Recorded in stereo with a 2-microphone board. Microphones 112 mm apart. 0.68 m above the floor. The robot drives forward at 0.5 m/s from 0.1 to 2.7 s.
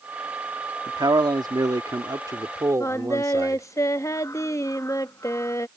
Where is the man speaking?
40° right (ahead or behind); by 3.6 s 30° right (ahead or behind).